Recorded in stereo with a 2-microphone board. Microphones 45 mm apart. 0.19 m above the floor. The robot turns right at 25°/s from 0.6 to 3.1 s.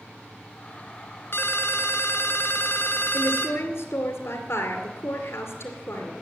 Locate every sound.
1.3 s a ringtone: 75° left, 1.6 m; by 3.6 s 120° left, 1.6 m
3.1 s a woman speaking: 55° left (ahead or behind), 2 m